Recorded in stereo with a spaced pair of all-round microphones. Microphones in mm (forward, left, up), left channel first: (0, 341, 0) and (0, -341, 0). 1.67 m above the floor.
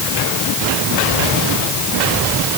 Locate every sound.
Only background noise.